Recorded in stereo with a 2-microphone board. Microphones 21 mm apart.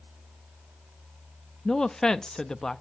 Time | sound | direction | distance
1.6 | a woman speaking | 35° left (ahead or behind) | 0.6 m